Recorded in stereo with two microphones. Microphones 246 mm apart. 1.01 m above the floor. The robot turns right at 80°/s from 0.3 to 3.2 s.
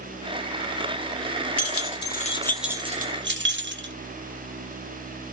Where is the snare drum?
No snare drum in this recording.